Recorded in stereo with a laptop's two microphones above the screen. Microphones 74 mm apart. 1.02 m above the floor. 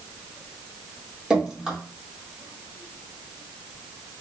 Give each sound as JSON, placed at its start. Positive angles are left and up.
{"t": 1.3, "sound": "dripping", "side_deg": -15, "distance_m": 1.4}